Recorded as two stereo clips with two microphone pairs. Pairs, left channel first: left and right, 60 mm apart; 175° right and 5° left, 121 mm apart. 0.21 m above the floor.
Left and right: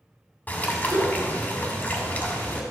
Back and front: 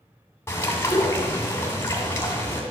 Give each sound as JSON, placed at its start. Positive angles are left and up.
{"t": 0.5, "sound": "a bird", "azimuth_deg": 130, "distance_m": 2.0}